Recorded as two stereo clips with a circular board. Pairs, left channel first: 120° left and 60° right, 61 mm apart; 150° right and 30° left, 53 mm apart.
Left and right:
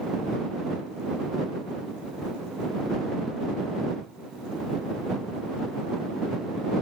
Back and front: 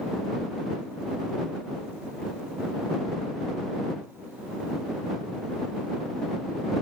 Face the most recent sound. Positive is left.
No sound to turn to.